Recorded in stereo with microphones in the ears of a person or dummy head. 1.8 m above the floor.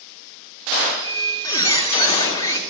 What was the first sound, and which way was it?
A squeak, 20° left (ahead or behind).